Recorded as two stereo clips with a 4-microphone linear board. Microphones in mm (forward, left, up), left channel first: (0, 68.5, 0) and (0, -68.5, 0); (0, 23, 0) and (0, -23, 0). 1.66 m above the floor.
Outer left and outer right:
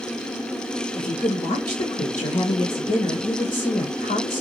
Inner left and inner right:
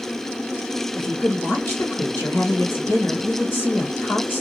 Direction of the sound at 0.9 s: 55° left (ahead or behind).